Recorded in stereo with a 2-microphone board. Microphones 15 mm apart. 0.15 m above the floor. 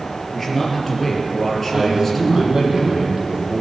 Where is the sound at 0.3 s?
20° left (ahead or behind), 3.5 m.